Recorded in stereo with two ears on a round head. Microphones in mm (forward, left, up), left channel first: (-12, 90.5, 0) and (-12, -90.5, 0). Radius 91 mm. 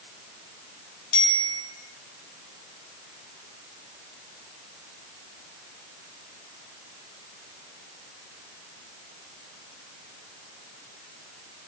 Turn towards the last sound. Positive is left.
turn(degrees=70)  # may be behind; listen again after turning